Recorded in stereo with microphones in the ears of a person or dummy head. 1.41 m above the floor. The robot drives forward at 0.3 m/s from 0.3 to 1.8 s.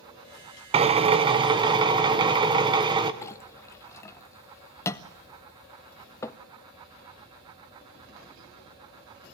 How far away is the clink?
About 0.7 m.